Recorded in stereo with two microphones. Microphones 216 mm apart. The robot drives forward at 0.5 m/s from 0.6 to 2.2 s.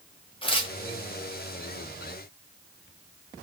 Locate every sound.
0.4 s tearing paper: 25° left (ahead or behind), 0.8 m